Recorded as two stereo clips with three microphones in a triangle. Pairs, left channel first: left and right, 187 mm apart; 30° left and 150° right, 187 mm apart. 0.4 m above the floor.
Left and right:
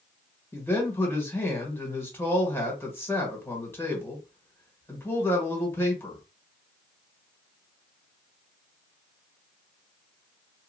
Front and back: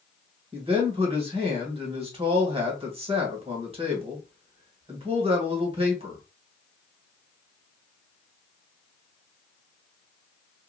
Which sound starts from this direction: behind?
A man speaking, at 0.5 s.